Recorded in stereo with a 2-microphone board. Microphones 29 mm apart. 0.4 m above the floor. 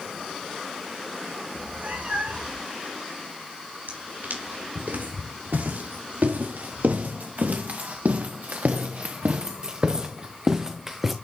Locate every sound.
1.5 s a cat meowing: 60° right (ahead or behind), 5.5 m
3.9 s footsteps: 85° right, 4 m; by 11.1 s 10° right (ahead or behind), 1.5 m